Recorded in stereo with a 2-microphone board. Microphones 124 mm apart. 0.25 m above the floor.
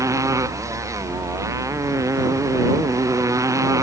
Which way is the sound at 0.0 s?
25° right (ahead or behind).